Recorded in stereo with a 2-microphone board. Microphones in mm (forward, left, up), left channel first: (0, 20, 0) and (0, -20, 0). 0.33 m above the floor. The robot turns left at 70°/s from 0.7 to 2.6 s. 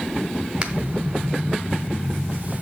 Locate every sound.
0.6 s a finger snap: 20° right (ahead or behind), 1.7 m